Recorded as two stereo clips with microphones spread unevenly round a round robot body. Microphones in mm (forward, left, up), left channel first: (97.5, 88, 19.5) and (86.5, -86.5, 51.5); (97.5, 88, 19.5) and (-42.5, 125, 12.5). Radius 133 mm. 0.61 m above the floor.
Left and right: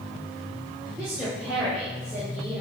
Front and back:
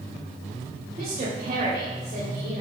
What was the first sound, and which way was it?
A woman speaking, 155° left.